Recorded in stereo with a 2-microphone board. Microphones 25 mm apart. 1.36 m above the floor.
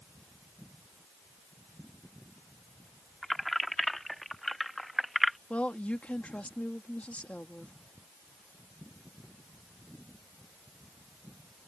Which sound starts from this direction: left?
A woman speaking, at 5.5 s.